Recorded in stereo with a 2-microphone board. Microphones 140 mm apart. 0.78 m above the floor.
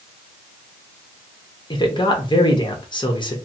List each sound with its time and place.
1.7 s a man speaking: 35° left (ahead or behind), 1.0 m